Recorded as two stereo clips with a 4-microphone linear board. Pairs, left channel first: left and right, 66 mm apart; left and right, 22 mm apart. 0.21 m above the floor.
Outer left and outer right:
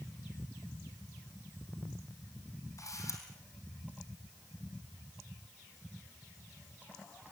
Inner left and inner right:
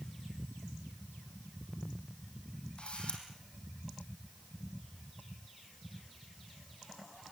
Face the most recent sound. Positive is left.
turn(degrees=55)  # may be behind; listen again after turning